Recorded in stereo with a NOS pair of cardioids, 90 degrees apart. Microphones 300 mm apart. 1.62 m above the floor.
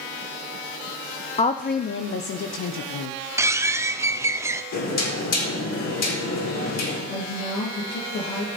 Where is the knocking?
60° left, 4.5 m.